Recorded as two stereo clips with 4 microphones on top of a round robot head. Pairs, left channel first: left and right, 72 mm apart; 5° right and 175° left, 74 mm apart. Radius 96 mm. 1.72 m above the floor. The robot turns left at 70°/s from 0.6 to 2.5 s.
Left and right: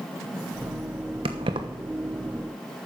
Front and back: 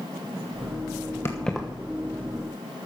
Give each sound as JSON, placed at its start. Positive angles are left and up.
{"t": 1.2, "sound": "keys jangling", "azimuth_deg": -75, "distance_m": 0.9}